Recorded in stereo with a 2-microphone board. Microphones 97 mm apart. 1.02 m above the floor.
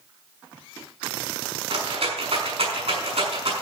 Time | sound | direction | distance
1.7 | a rattle | 70° right (ahead or behind) | 6 m